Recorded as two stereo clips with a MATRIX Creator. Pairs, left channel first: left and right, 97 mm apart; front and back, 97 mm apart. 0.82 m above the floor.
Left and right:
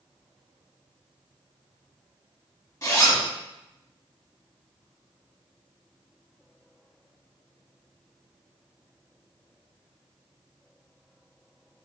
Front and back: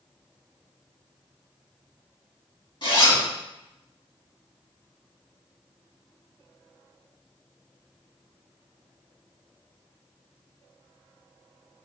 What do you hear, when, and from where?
2.8 s a zipper: 35° left, 1.7 m